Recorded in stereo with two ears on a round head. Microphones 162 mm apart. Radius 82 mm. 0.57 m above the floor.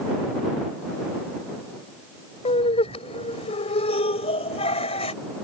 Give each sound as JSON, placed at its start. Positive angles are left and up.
{"t": 2.5, "sound": "laughter", "side_deg": 35}